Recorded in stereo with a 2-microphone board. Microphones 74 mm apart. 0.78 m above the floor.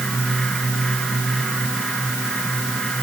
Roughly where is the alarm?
I don't hear an alarm.